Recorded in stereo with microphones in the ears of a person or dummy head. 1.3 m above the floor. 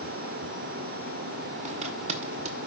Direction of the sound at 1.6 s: 35° right (ahead or behind).